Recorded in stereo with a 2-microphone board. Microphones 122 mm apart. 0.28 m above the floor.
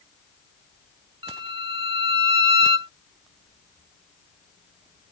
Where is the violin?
45° right (ahead or behind).